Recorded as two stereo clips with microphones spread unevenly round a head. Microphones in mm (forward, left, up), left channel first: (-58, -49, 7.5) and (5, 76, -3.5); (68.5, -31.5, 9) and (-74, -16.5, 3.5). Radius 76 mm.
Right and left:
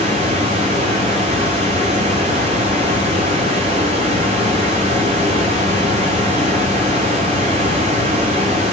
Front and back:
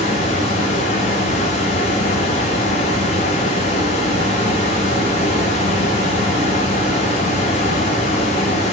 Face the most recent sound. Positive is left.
turn(degrees=20)